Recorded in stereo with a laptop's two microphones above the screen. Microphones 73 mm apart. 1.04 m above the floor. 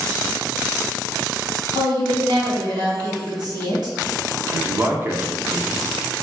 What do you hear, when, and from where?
1.8 s a woman speaking: 60° right (ahead or behind), 1.9 m
4.5 s a man speaking: 30° right (ahead or behind), 0.6 m